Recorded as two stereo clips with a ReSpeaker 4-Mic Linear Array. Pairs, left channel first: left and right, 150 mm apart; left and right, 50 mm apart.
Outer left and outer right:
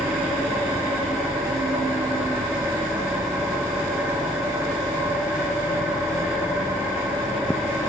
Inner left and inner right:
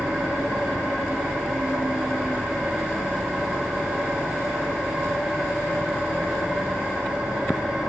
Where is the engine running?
15° right (ahead or behind), 5.5 m.